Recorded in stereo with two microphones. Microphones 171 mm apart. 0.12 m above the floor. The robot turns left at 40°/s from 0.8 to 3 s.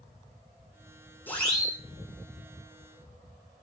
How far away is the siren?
About 9 m.